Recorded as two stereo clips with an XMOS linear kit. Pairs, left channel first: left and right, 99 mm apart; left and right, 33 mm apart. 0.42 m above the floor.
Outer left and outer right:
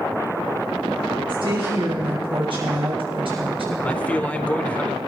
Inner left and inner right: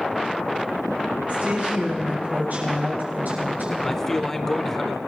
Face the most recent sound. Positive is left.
turn(degrees=15)  # may be behind; listen again after turning